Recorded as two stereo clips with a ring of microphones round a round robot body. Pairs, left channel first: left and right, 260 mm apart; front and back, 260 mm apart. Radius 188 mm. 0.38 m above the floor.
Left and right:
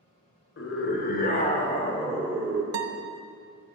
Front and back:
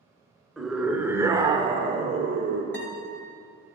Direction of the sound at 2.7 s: 80° right.